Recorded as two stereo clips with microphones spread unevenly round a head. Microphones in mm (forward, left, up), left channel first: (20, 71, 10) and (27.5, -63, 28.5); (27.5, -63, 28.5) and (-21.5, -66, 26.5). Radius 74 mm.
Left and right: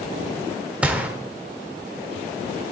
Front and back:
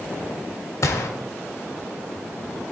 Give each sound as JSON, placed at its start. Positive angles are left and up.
{"t": 0.8, "sound": "a gunshot", "azimuth_deg": -10, "distance_m": 1.3}